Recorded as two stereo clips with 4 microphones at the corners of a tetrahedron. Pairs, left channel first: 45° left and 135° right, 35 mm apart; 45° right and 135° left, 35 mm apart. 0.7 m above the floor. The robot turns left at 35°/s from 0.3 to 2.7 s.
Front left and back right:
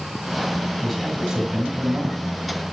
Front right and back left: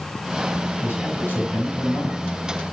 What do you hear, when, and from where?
0.8 s a man speaking: 45° right, 5 m; by 2.2 s 95° right, 5 m